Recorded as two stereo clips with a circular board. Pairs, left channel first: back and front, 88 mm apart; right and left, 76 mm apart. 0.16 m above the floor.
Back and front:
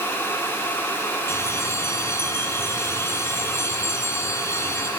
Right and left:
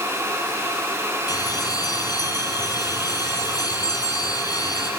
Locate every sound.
1.3 s a bell: 120° right, 4.5 m